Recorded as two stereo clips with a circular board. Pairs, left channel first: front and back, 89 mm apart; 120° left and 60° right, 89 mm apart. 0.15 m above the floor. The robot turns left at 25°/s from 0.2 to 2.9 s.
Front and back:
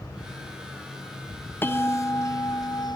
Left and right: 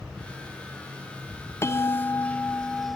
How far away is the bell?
About 0.6 m.